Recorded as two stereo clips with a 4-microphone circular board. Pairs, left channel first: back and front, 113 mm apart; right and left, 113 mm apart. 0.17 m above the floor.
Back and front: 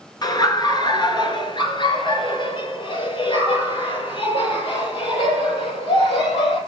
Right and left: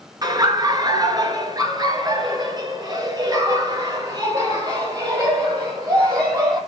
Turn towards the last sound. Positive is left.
turn(degrees=145)